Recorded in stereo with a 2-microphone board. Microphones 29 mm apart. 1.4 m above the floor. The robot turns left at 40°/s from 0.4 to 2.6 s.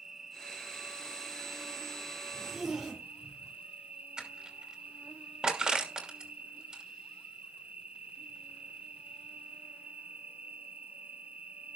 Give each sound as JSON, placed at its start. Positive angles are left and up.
{"t": 0.0, "sound": "an insect", "azimuth_deg": -25, "distance_m": 1.2}
{"t": 2.3, "sound": "a zipper", "side_deg": -25, "distance_m": 5.0}
{"t": 4.2, "sound": "crushing", "side_deg": -25, "distance_m": 2.5}